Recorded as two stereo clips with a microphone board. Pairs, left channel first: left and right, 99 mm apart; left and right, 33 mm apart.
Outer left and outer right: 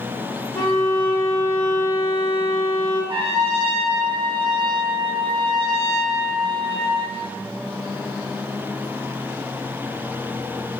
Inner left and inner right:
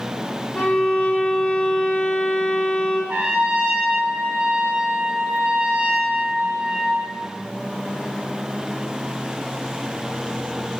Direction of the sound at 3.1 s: 65° right (ahead or behind).